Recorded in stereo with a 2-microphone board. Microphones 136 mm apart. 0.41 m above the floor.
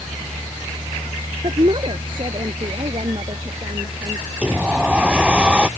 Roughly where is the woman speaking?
Right.